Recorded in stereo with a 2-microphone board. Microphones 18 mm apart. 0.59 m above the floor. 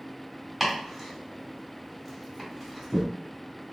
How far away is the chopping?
About 1.8 m.